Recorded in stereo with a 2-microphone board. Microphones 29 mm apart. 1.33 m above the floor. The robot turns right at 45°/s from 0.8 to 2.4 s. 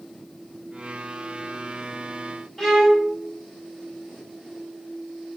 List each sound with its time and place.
2.6 s a violin: centre (ahead or behind), 1.2 m